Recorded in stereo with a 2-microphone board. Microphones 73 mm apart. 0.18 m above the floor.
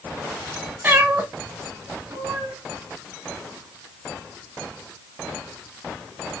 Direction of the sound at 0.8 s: 25° right (ahead or behind).